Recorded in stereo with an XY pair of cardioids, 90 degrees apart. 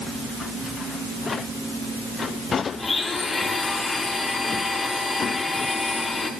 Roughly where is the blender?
Ahead left.